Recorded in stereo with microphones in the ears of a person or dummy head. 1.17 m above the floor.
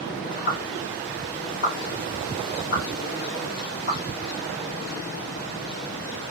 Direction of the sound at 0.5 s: 40° left (ahead or behind).